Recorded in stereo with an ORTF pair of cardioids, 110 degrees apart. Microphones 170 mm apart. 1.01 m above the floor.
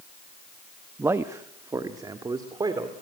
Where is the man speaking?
15° right, 0.9 m; by 2.9 s 25° right, 2.5 m.